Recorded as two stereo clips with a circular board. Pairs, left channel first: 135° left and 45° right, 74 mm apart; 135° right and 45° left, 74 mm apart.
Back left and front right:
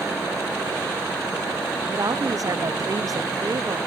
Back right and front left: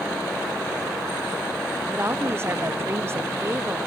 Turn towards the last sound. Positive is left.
turn(degrees=-10)